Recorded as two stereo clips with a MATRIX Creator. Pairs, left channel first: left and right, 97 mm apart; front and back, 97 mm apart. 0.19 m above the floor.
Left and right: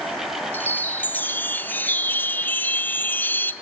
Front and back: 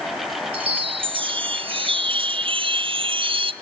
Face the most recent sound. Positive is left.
turn(degrees=160)